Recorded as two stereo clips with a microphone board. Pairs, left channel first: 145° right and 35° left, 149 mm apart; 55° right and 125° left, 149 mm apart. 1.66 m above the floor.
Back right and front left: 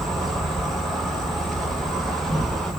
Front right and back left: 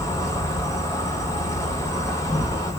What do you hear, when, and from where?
0.0 s an insect: 65° right, 0.9 m